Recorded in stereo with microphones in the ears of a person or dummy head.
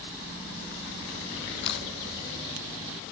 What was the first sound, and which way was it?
A camera shutter, 65° left (ahead or behind).